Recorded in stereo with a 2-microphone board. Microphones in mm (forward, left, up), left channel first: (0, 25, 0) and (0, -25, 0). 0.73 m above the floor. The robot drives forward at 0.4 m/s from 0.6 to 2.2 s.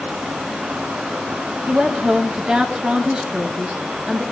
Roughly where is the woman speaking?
Right.